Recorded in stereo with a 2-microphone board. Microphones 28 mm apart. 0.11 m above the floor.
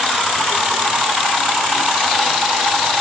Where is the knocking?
No knocking in this recording.